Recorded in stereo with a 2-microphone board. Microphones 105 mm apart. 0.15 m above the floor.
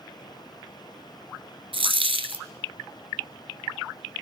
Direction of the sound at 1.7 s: 60° right (ahead or behind).